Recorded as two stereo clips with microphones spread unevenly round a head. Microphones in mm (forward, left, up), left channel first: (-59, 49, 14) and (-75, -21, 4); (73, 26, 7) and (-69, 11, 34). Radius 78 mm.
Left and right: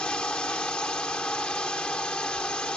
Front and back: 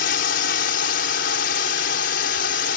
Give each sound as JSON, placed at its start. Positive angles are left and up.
{"t": 0.0, "sound": "a drone", "azimuth_deg": -5}